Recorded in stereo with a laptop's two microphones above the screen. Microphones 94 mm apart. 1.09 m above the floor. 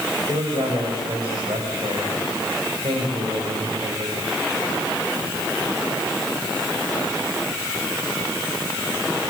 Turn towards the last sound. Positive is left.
turn(degrees=-70)  # may be behind; listen again after turning